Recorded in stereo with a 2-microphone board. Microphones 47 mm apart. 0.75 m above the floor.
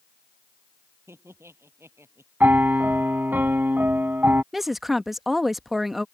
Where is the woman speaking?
5° right (ahead or behind).